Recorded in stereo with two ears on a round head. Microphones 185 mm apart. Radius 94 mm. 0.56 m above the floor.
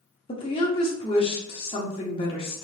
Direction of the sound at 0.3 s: 25° left (ahead or behind).